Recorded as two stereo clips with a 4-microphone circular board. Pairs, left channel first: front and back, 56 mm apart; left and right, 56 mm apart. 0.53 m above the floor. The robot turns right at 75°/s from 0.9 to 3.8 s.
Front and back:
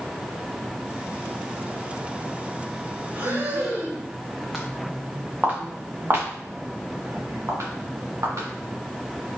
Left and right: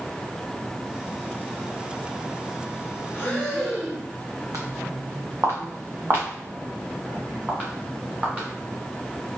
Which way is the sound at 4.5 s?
90° right.